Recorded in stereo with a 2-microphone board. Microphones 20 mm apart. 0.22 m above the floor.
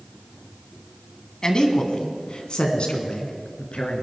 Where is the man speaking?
35° left (ahead or behind), 1.5 m; by 4.0 s 65° left (ahead or behind), 2.5 m.